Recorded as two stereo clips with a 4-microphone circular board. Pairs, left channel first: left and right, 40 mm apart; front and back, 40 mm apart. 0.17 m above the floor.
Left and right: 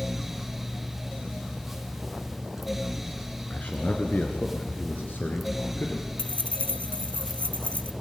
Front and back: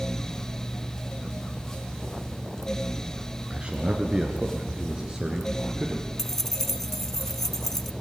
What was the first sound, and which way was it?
A man speaking, 130° left.